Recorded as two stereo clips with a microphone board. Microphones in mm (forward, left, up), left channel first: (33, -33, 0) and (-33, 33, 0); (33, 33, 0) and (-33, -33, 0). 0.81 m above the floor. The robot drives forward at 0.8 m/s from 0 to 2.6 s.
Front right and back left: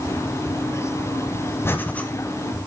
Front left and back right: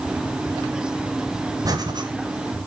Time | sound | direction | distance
1.6 | breathing | 100° right | 1.0 m